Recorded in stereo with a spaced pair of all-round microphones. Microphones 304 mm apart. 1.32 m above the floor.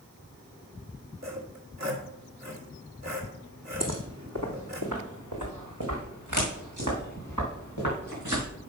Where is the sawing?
60° right (ahead or behind), 2.5 m.